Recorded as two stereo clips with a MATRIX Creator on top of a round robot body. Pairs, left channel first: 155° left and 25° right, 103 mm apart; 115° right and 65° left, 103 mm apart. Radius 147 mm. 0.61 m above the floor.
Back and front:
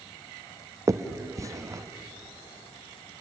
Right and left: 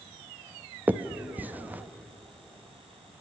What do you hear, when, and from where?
0.9 s a finger snap: 5° left, 0.9 m